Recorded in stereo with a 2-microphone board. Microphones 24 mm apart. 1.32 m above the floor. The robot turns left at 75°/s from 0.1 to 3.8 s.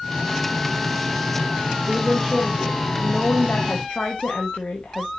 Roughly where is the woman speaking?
Behind right.